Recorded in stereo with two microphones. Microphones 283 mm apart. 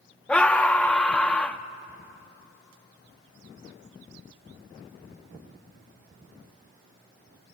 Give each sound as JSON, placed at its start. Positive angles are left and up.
{"t": 0.3, "sound": "a scream", "side_deg": 5, "distance_m": 0.6}